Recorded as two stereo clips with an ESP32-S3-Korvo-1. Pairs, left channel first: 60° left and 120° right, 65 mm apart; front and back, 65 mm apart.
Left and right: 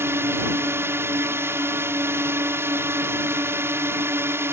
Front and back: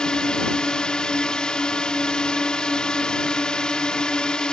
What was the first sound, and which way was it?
A drone, 75° right.